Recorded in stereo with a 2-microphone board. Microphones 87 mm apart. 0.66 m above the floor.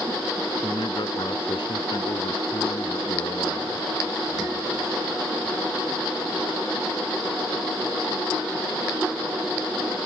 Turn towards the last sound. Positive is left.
turn(degrees=60)  # may be behind; listen again after turning